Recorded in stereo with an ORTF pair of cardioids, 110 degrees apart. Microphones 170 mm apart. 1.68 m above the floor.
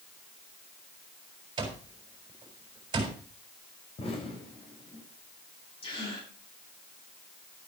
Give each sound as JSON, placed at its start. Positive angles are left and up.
{"t": 1.6, "sound": "an alarm clock", "azimuth_deg": -25, "distance_m": 4.5}
{"t": 4.0, "sound": "an explosion", "azimuth_deg": 35, "distance_m": 4.0}
{"t": 5.8, "sound": "a gasp", "azimuth_deg": 30, "distance_m": 7.5}